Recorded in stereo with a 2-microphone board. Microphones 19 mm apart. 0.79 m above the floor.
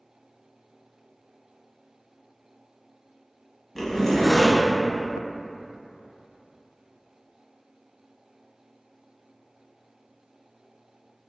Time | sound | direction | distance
3.8 | a zipper | 15° left (ahead or behind) | 0.9 m